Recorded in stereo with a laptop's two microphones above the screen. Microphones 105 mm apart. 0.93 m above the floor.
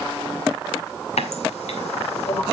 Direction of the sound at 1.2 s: 90° left.